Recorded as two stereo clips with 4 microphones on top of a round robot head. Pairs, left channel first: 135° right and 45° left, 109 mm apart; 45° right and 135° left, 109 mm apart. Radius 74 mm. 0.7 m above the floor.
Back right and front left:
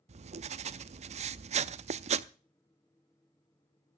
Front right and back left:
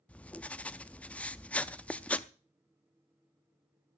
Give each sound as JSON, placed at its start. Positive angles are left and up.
{"t": 0.1, "sound": "writing", "azimuth_deg": 35, "distance_m": 0.6}